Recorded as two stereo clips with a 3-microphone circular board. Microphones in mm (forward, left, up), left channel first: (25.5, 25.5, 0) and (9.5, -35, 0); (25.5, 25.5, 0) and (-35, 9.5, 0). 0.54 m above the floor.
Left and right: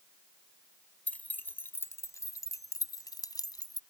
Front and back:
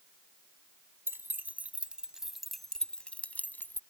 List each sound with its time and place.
1.1 s keys jangling: 145° left; by 3.8 s 70° left